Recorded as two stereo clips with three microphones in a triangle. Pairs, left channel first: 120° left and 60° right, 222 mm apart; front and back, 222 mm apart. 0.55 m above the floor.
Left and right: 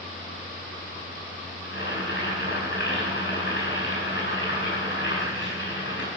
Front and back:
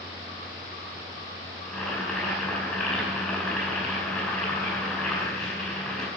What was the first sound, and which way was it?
Boiling, 85° left.